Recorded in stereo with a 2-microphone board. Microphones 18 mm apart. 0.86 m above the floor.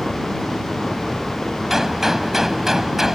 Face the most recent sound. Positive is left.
turn(degrees=-10)  # may be behind; listen again after turning